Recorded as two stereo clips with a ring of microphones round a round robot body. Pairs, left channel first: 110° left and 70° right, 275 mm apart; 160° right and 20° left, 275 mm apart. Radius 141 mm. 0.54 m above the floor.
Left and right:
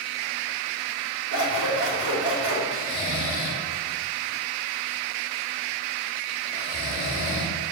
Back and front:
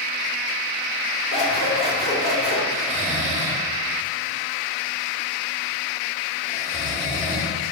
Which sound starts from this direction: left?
Snoring, at 2.7 s.